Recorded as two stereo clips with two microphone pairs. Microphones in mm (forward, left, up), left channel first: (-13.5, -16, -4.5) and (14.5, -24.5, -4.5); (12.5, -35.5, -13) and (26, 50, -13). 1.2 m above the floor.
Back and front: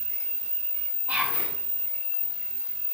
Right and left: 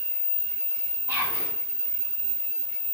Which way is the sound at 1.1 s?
15° left.